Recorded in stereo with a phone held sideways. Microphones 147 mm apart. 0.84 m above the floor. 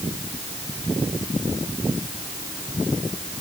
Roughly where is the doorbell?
I don't hear a doorbell.